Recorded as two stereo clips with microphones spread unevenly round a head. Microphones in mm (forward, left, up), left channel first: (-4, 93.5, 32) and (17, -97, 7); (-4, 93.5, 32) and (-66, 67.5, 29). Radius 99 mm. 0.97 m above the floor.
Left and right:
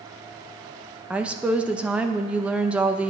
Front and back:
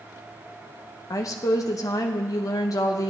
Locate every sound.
1.1 s a woman speaking: 5° right, 0.7 m